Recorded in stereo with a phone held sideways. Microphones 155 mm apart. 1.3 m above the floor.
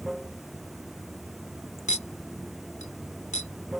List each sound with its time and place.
0.0 s running water: centre (ahead or behind)
1.9 s a clink: 50° left (ahead or behind)